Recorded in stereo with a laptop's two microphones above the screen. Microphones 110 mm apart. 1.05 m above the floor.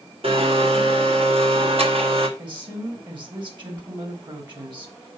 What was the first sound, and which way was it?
A blender, 60° right (ahead or behind).